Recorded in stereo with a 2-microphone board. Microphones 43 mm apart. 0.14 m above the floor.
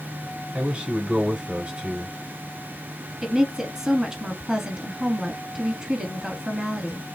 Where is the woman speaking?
10° right (ahead or behind), 1.1 m.